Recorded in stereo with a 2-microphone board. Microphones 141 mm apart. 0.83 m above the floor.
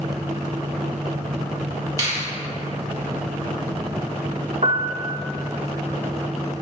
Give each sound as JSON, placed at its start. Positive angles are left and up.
{"t": 2.0, "sound": "a finger snap", "side_deg": -25, "distance_m": 1.6}
{"t": 4.6, "sound": "a piano", "side_deg": -50, "distance_m": 0.5}